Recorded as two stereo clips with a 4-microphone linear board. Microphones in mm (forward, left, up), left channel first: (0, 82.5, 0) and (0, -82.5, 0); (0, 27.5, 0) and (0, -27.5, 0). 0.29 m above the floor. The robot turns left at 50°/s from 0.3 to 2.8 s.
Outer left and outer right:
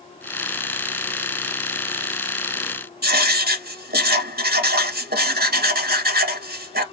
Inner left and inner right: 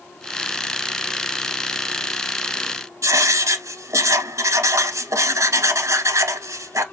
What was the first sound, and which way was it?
Writing, 70° right (ahead or behind).